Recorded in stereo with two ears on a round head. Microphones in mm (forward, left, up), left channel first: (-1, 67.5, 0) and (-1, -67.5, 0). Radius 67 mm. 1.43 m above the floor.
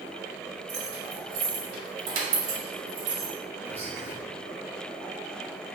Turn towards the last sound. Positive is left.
turn(degrees=-15)  # may be behind; listen again after turning